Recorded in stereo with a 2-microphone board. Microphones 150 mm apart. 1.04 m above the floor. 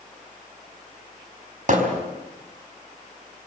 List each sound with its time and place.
1.7 s hammering: 60° right (ahead or behind), 4.5 m